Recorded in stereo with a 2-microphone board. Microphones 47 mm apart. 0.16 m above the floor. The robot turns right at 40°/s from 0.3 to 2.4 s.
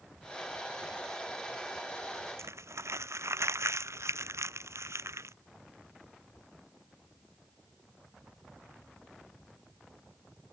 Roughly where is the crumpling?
Right.